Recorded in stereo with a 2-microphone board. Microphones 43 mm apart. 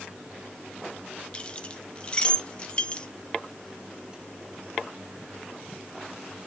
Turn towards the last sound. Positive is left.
turn(degrees=25)  # may be behind; listen again after turning